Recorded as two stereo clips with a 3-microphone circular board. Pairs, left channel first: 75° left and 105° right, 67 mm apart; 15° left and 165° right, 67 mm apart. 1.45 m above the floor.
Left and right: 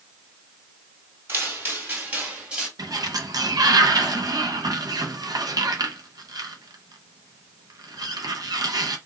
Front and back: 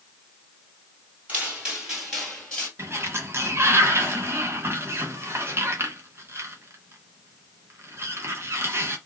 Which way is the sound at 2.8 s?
115° right.